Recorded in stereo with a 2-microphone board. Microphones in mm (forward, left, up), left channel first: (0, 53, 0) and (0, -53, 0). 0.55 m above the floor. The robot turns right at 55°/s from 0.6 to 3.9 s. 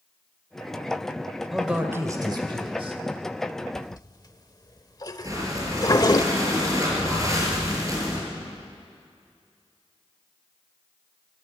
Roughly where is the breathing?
Right.